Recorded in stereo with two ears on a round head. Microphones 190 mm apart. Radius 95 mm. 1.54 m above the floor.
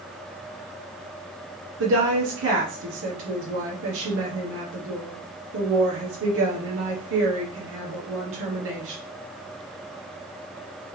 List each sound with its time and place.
1.8 s a woman speaking: 65° right (ahead or behind), 1.0 m